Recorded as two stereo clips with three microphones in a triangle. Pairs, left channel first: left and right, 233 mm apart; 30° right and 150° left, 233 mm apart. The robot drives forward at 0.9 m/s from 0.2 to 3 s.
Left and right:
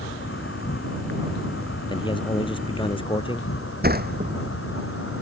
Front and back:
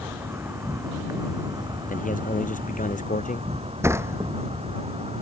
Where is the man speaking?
20° left; by 3.5 s 25° left.